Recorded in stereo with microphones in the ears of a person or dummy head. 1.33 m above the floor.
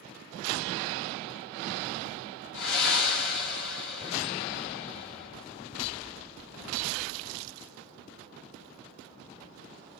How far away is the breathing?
About 4 m.